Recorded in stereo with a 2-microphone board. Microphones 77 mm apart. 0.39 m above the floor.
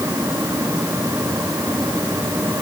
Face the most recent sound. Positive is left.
No sound to turn to.